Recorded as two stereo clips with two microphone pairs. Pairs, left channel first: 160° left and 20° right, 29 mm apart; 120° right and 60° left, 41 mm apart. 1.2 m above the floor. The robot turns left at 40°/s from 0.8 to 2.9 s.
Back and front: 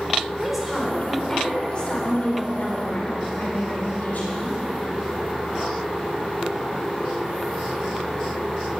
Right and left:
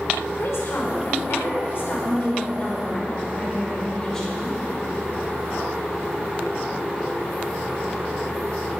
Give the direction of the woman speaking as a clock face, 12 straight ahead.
4 o'clock.